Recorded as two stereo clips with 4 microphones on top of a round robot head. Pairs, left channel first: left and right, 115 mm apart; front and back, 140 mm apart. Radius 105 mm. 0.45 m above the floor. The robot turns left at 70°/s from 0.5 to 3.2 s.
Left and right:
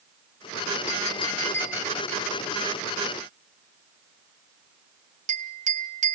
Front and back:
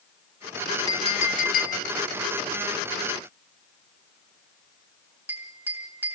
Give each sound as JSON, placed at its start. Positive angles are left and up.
{"t": 0.9, "sound": "a clink", "azimuth_deg": 60, "distance_m": 3.5}